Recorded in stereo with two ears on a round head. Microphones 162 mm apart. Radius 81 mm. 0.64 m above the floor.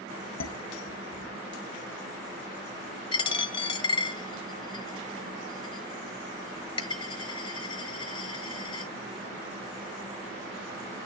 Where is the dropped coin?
30° left (ahead or behind), 1.6 m.